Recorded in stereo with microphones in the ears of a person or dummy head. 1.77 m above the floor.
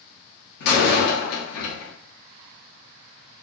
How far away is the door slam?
About 1.0 m.